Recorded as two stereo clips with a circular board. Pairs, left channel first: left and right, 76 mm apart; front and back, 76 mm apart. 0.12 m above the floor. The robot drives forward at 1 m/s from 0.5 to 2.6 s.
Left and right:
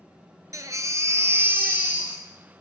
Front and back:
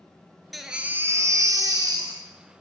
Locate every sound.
0.5 s a baby crying: 90° right, 0.8 m; by 2.6 s 165° right, 2 m